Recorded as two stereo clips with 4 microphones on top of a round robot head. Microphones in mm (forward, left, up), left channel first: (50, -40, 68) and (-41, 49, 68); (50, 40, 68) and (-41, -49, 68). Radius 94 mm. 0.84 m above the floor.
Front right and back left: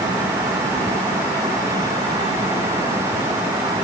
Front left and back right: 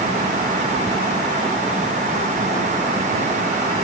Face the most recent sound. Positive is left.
No sound to turn to.